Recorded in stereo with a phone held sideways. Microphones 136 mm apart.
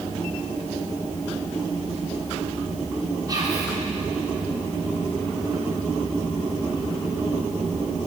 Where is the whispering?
35° right (ahead or behind), 4 m.